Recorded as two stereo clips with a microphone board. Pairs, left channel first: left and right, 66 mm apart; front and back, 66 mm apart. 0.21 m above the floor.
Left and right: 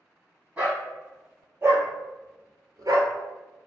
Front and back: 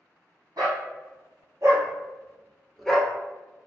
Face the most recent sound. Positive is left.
turn(degrees=-70)